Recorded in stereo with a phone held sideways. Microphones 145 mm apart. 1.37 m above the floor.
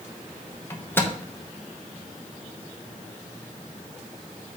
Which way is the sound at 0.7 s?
15° left (ahead or behind).